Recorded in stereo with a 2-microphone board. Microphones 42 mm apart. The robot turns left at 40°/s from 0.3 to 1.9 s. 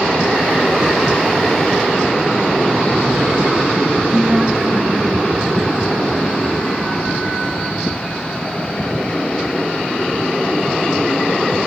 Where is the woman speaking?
40° right (ahead or behind), 2.5 m.